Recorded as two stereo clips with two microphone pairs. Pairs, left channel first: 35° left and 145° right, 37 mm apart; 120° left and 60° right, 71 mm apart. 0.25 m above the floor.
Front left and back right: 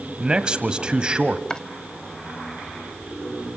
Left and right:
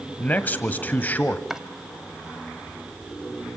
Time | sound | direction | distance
0.2 | a man speaking | 170° left | 1.3 m
1.5 | chopping | 10° left | 1.2 m